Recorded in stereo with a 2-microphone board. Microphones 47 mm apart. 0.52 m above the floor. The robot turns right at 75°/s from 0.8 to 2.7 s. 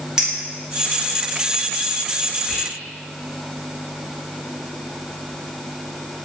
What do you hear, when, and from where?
0.2 s a clink: 15° right (ahead or behind), 0.7 m
2.5 s whispering: 5° left (ahead or behind), 0.6 m; by 2.7 s 15° left (ahead or behind), 0.6 m